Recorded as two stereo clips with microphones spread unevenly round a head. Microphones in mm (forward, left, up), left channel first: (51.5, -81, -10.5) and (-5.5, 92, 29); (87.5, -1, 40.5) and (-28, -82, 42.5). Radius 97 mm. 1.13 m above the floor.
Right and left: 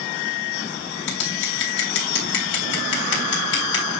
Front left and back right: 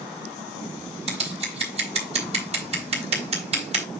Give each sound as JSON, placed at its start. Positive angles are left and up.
{"t": 1.1, "sound": "scissors", "azimuth_deg": -105, "distance_m": 3.5}